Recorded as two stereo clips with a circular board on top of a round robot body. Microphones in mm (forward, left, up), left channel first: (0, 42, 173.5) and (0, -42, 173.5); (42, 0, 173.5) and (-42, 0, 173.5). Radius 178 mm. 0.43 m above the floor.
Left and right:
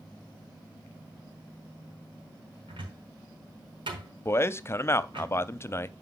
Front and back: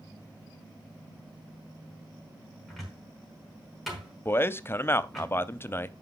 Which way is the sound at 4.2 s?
50° left.